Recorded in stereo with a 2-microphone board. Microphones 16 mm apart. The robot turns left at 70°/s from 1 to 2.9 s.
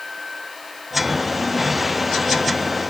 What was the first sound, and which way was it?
Only background noise.